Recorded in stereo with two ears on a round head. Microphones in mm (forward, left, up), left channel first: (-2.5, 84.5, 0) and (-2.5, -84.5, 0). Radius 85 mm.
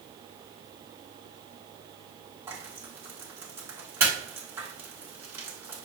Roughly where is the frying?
Centre.